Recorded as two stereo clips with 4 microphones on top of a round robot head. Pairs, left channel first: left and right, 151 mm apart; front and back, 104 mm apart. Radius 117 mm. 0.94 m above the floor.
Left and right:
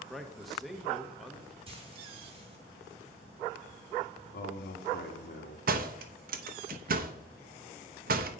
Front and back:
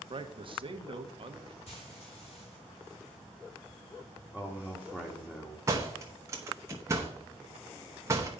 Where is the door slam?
115° right, 0.8 m.